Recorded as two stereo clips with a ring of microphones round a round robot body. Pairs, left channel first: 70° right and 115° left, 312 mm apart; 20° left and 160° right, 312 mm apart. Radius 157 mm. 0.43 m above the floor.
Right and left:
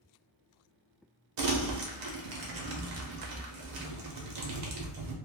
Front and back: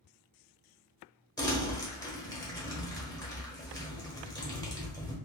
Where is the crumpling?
100° left, 0.8 m.